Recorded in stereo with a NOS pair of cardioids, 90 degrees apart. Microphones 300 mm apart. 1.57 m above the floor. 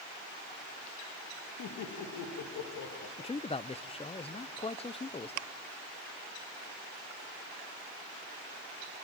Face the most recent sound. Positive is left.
turn(degrees=20)